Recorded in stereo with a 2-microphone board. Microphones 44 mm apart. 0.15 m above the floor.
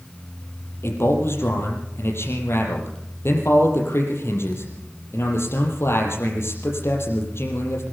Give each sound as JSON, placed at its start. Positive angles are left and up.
{"t": 0.8, "sound": "a man speaking", "side_deg": 70, "distance_m": 5.5}